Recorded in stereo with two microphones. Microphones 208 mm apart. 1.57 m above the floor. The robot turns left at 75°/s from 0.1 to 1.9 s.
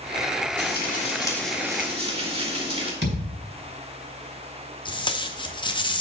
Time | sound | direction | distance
0.6 | frying | 70° left | 1.9 m
3.0 | a thud | 70° right (ahead or behind) | 3 m
4.8 | tape being pulled | 25° left (ahead or behind) | 0.7 m